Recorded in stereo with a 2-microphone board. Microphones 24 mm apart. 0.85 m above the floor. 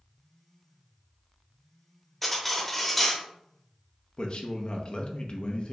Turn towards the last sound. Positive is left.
turn(degrees=50)  # may be behind; listen again after turning